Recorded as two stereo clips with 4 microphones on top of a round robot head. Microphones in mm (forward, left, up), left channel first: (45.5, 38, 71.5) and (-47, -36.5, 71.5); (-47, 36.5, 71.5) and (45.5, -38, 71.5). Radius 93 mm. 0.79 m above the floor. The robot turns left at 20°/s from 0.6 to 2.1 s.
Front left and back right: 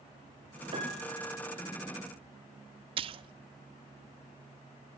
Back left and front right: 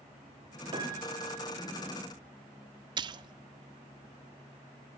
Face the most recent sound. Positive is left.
turn(degrees=-95)